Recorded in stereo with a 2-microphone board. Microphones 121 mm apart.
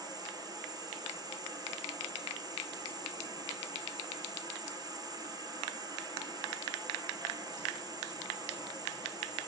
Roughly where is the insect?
Right.